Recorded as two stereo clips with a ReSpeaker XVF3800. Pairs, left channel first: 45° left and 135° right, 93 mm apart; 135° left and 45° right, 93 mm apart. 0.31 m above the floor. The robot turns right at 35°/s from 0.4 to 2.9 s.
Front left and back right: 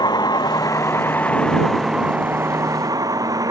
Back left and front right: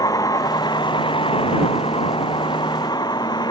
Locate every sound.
0.0 s a vehicle: 85° left; by 3.5 s 175° left